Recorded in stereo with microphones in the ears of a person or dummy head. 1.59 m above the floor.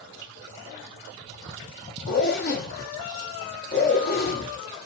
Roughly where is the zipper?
Left.